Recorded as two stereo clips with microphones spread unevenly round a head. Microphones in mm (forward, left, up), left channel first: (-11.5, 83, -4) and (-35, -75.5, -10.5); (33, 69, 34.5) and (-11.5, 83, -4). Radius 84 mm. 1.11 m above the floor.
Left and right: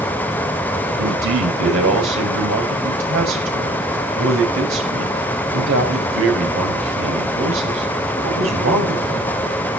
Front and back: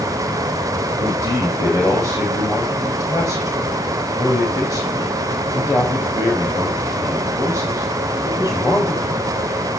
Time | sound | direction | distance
1.0 | a man speaking | 85° right | 5 m